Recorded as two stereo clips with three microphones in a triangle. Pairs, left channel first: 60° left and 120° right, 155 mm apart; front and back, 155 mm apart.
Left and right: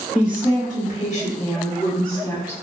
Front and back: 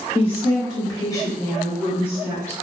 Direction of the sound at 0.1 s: 45° left.